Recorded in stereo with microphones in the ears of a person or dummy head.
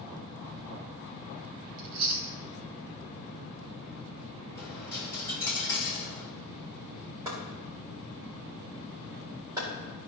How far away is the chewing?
About 1.0 m.